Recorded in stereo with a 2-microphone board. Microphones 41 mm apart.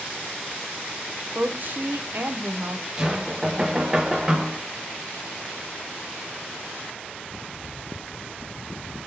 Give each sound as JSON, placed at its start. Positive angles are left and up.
{"t": 1.4, "sound": "a woman speaking", "side_deg": -50, "distance_m": 0.5}
{"t": 3.0, "sound": "knocking", "side_deg": -15, "distance_m": 0.5}